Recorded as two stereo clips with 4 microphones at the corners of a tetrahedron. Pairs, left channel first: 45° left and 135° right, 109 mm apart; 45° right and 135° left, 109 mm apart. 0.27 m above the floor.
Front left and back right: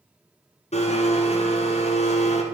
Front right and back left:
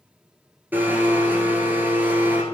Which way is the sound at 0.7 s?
60° left.